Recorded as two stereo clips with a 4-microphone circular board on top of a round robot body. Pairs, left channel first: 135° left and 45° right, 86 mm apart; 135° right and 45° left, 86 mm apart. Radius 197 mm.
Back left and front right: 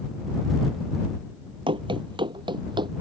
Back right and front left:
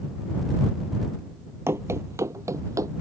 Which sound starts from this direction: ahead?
Running footsteps, at 1.7 s.